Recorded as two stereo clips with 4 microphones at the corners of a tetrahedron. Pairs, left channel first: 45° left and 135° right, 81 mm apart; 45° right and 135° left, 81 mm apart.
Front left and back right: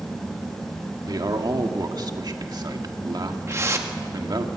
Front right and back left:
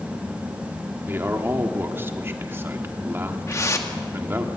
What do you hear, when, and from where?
1.1 s a man speaking: 165° right, 1.7 m
3.5 s a whoosh: 85° right, 1.7 m